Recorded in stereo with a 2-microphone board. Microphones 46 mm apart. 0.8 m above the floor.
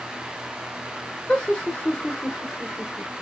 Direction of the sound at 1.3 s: 20° left (ahead or behind).